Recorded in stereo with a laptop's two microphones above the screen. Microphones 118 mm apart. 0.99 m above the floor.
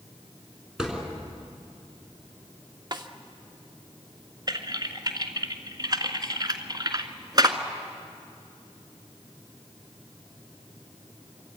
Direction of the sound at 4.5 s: 35° right (ahead or behind).